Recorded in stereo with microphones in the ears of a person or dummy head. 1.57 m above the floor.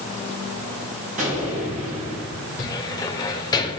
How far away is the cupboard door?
About 2 m.